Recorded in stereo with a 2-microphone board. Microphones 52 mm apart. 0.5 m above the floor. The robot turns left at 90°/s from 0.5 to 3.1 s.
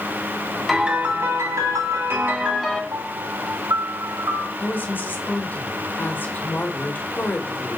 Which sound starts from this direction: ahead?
A piano, at 0.7 s.